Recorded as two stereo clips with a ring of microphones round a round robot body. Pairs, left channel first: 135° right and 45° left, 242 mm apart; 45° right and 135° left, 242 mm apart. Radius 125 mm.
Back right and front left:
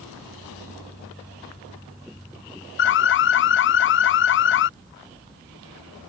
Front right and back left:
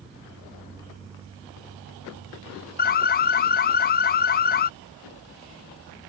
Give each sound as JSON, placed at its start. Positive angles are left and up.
{"t": 2.8, "sound": "an alarm", "azimuth_deg": -95}